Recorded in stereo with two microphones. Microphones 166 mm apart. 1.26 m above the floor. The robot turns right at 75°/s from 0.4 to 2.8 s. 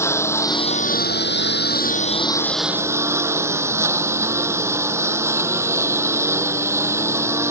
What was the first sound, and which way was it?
A lawn mower, 15° left.